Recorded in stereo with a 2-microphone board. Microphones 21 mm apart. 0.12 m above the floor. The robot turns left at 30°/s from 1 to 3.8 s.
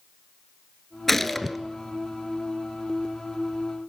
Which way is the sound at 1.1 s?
15° left (ahead or behind).